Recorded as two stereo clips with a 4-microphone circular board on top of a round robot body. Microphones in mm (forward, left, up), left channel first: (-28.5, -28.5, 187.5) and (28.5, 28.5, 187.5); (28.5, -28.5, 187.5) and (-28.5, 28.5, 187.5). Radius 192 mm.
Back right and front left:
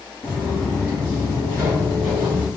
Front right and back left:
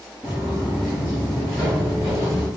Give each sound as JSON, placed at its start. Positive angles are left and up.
{"t": 0.2, "sound": "footsteps", "azimuth_deg": -125, "distance_m": 0.8}